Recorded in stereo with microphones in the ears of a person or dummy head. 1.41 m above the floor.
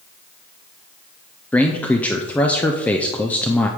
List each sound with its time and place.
1.5 s a man speaking: 5° left (ahead or behind), 0.5 m